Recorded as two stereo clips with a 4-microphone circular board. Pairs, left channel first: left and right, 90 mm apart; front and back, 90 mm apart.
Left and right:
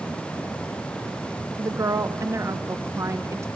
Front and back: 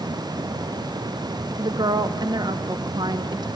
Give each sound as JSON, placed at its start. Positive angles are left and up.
{"t": 1.6, "sound": "a woman speaking", "azimuth_deg": -145, "distance_m": 0.8}